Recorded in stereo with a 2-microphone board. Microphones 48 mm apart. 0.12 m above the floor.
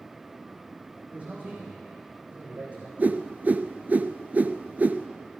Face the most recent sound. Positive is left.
turn(degrees=-35)  # may be behind; listen again after turning